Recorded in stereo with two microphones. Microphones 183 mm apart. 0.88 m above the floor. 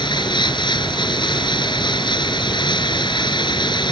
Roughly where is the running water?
Left.